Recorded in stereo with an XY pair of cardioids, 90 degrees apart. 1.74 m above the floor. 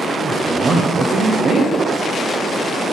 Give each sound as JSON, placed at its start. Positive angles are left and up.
{"t": 0.2, "sound": "a man speaking", "azimuth_deg": -60, "distance_m": 1.0}